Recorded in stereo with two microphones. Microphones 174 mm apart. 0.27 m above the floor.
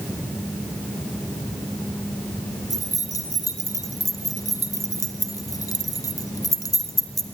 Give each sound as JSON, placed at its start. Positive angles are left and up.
{"t": 2.7, "sound": "keys jangling", "side_deg": 20, "distance_m": 1.7}